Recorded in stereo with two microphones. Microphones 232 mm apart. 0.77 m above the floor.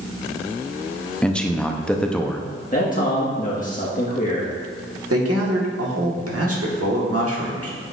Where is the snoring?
No snoring in this recording.